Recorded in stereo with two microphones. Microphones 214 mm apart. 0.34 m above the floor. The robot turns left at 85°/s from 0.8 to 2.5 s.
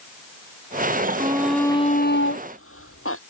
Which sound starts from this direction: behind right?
A shout, at 1.2 s.